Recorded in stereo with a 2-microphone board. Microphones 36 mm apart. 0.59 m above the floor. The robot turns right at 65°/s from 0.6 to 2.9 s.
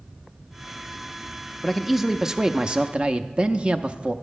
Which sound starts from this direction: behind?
A man speaking, at 1.6 s.